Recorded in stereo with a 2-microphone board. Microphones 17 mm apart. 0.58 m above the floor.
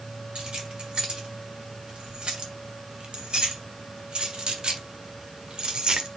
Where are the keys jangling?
60° right (ahead or behind), 3.5 m; by 6.1 s 55° right (ahead or behind), 1.5 m.